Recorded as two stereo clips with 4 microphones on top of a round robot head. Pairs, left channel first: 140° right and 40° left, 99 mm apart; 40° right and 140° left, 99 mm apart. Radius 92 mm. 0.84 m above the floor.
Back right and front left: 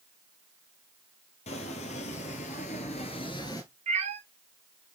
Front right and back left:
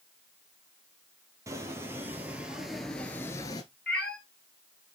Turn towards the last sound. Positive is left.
turn(degrees=40)